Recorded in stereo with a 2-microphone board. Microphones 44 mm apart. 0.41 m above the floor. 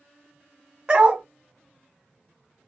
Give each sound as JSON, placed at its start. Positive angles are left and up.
{"t": 0.9, "sound": "a dog barking", "side_deg": -20, "distance_m": 0.7}